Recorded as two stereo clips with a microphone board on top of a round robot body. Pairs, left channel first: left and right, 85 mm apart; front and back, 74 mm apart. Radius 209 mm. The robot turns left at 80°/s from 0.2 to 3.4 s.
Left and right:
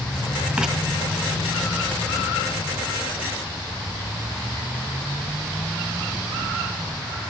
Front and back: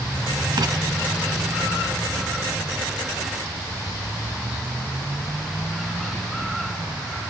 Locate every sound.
0.6 s writing: 165° right, 2 m; by 0.7 s straight behind, 2 m